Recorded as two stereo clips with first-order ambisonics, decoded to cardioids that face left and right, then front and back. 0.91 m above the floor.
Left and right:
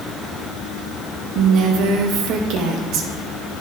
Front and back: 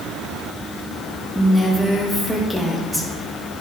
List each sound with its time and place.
1.4 s a woman speaking: 90° right, 1.3 m